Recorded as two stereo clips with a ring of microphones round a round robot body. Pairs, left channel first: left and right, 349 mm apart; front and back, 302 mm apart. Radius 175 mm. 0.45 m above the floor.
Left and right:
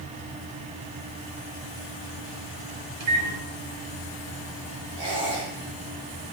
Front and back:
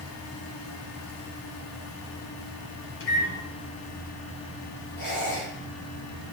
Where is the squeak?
65° right, 7 m.